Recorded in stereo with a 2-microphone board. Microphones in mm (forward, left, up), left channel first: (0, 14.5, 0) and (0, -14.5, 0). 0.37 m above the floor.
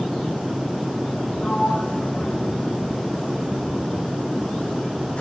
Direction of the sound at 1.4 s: 45° left (ahead or behind).